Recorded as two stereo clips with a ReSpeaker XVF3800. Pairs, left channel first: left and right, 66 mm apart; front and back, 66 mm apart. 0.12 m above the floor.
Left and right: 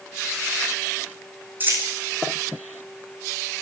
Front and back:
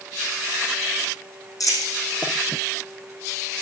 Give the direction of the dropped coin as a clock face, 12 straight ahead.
1 o'clock.